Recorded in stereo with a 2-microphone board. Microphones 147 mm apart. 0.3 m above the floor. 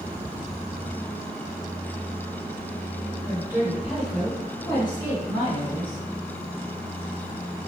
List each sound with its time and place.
3.3 s a woman speaking: 25° right (ahead or behind), 1.3 m; by 6.0 s 40° left (ahead or behind), 2 m